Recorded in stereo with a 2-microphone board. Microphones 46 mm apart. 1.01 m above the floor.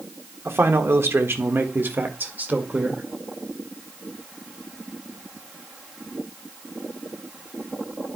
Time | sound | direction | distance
0.5 | a man speaking | 65° right (ahead or behind) | 1.4 m